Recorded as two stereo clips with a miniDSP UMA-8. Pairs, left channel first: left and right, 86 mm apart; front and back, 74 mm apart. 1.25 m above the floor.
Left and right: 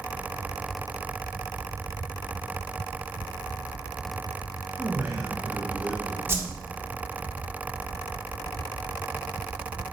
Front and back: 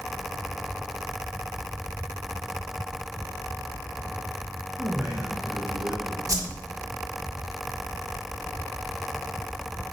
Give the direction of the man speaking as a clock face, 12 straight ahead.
4 o'clock.